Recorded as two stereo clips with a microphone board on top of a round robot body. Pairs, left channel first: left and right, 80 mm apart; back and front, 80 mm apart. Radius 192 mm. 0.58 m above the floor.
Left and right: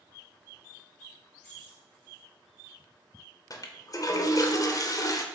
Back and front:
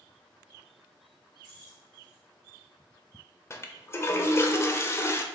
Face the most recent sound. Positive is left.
turn(degrees=125)